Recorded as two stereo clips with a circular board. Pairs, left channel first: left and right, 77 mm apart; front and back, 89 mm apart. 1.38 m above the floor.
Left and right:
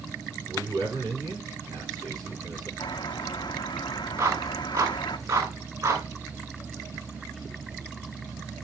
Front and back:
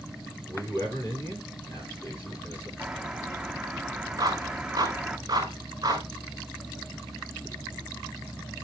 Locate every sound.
0.5 s a man speaking: 60° right, 9.5 m
2.8 s a bird: 100° left, 1.1 m
4.2 s a clap: 130° right, 5.5 m